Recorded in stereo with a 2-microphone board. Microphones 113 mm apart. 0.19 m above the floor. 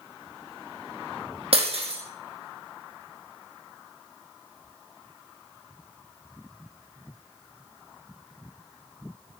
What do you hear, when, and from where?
1.5 s breaking glass: 60° right (ahead or behind), 3.5 m